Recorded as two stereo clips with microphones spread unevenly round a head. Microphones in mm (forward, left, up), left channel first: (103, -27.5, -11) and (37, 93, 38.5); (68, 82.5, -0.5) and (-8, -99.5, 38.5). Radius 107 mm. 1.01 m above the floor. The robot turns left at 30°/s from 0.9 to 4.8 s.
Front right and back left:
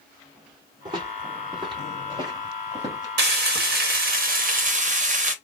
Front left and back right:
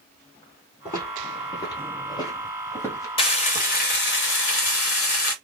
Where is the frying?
135° left, 1.0 m; by 5.3 s 85° left, 1.0 m.